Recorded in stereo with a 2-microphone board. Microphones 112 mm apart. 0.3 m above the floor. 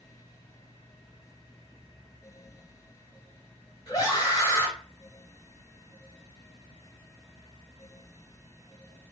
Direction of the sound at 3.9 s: 35° left (ahead or behind).